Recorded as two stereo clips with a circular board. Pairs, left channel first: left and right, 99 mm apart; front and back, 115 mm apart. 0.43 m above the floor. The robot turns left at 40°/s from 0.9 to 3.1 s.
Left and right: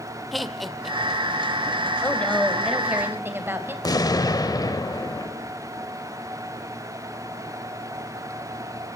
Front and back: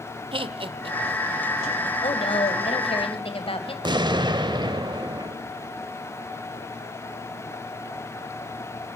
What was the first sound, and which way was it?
Laughter, straight behind.